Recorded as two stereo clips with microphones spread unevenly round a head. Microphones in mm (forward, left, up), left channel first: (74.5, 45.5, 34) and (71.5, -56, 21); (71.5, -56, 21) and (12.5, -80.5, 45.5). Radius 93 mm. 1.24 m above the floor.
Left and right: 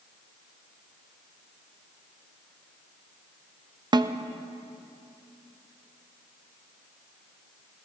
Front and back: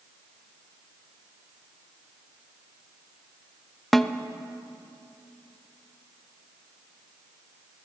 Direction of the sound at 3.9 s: 50° right.